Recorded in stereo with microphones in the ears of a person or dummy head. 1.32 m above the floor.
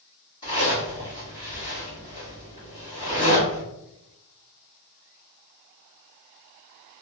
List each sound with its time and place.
0.4 s a zipper: 20° left (ahead or behind), 1.5 m